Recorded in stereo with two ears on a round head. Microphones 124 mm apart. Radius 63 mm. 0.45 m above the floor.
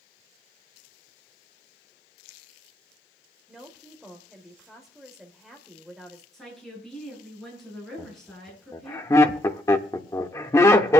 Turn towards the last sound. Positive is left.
turn(degrees=20)  # may be behind; listen again after turning